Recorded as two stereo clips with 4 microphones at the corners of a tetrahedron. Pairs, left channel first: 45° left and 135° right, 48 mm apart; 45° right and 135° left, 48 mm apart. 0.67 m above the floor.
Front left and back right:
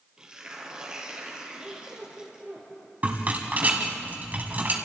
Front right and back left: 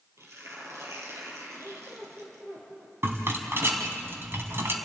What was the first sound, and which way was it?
Tearing paper, 150° left.